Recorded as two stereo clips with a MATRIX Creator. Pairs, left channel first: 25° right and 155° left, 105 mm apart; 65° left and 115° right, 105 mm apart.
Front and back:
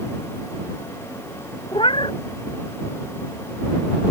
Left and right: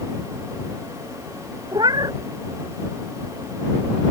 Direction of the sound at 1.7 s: 60° right.